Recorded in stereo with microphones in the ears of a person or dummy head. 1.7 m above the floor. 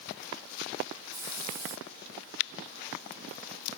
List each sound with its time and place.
1.1 s a hiss: 20° right (ahead or behind), 1.5 m